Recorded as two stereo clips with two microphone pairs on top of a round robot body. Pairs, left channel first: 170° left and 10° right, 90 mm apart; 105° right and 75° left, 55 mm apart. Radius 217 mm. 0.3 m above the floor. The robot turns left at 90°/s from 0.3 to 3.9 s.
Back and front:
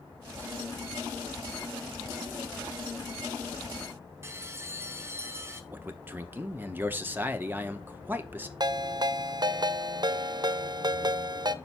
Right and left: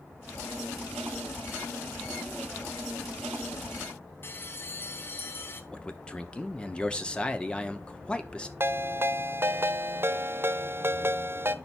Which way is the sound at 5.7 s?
45° right.